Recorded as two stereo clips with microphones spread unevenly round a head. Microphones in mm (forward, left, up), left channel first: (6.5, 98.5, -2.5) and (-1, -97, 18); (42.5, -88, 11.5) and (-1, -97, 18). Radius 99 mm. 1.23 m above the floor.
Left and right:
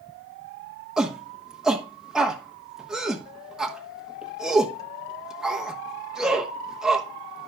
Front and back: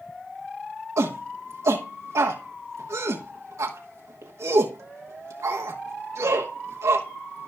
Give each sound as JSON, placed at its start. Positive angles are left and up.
{"t": 1.0, "sound": "a shout", "azimuth_deg": 180, "distance_m": 1.1}